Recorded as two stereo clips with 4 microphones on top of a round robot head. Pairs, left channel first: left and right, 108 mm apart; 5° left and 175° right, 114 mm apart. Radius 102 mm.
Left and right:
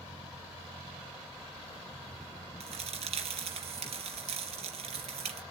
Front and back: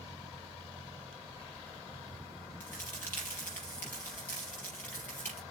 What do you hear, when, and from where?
2.6 s a crack: 75° right, 4.5 m